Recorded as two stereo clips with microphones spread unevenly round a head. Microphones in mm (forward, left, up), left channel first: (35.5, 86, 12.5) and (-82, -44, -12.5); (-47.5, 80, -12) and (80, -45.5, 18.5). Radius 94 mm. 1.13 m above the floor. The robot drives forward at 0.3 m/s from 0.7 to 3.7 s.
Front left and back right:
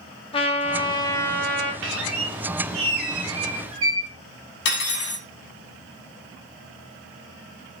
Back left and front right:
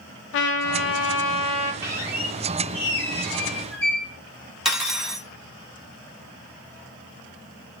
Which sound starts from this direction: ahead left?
Cutlery clinking, at 4.7 s.